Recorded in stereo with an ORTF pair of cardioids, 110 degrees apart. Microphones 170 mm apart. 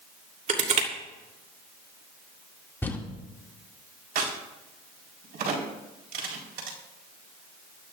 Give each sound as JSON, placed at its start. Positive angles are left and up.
{"t": 0.5, "sound": "crushing", "azimuth_deg": -45, "distance_m": 3.0}
{"t": 2.8, "sound": "crumpling", "azimuth_deg": 10, "distance_m": 2.0}
{"t": 4.2, "sound": "a crack", "azimuth_deg": -65, "distance_m": 4.5}